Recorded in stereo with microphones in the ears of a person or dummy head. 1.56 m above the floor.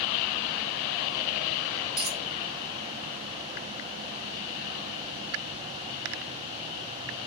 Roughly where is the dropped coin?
Centre.